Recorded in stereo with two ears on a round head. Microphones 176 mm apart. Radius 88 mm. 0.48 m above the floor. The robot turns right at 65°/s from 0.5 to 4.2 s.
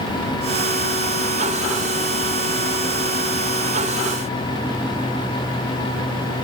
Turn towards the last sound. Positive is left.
No sound to turn to.